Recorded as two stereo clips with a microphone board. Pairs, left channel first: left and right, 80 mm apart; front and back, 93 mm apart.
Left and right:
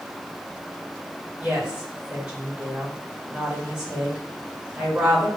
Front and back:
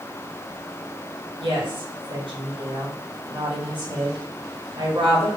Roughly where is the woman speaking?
Behind.